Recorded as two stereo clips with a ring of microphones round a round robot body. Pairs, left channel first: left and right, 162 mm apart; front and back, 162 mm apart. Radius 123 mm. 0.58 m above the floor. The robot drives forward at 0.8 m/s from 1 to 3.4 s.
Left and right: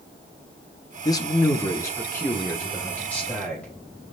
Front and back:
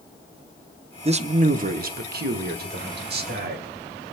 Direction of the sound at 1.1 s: 145° left.